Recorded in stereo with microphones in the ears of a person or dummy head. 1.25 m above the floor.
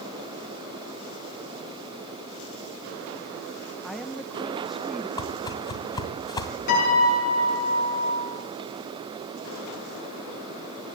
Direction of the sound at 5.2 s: 20° left (ahead or behind).